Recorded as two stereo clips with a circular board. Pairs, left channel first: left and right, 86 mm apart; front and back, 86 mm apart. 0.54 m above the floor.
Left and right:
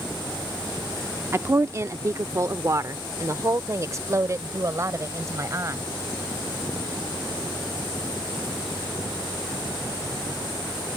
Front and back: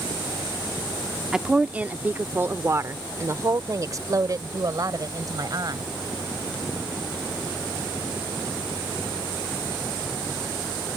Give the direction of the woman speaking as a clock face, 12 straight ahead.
3 o'clock.